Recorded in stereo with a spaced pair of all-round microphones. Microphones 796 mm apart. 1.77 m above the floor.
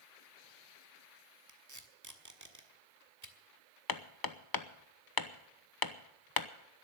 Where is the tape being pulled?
20° right (ahead or behind), 1.4 m.